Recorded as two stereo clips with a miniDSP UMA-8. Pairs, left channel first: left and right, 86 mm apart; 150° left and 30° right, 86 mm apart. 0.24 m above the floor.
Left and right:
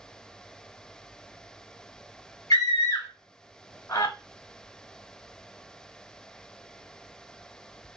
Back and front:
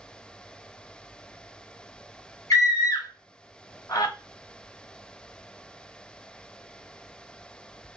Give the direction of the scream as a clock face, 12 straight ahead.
8 o'clock.